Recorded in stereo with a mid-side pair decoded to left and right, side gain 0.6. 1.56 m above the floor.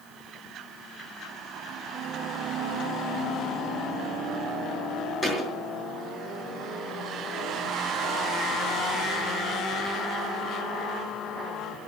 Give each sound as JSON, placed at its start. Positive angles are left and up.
{"t": 5.2, "sound": "a thud", "azimuth_deg": 15, "distance_m": 4.5}